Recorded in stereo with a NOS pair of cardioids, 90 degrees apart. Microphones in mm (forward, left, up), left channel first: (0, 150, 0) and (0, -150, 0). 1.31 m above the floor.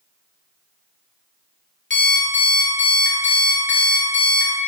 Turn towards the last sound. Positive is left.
turn(degrees=35)